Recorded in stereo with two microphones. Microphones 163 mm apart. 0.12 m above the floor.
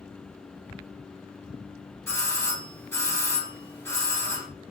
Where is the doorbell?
15° left (ahead or behind), 2 m.